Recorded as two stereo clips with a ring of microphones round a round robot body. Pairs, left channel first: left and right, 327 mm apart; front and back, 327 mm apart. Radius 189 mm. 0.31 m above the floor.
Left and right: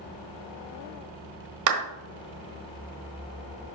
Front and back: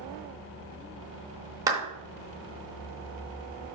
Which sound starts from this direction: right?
A clap, at 1.7 s.